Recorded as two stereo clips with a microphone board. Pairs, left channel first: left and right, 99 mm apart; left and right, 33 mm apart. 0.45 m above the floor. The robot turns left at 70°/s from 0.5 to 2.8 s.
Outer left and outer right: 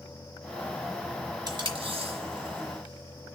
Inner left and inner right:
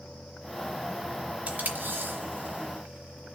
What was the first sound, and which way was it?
Tape being pulled, 45° right (ahead or behind).